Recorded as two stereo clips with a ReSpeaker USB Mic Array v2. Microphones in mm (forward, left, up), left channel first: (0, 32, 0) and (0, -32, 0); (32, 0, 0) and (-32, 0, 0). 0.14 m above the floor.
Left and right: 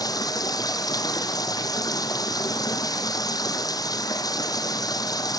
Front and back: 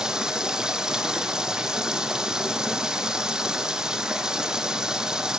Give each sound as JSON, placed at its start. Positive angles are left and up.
{"t": 0.0, "sound": "running water", "azimuth_deg": 100, "distance_m": 0.8}